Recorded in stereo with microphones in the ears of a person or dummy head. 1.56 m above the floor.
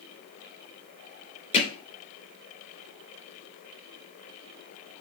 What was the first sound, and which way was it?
Hammering, 40° left (ahead or behind).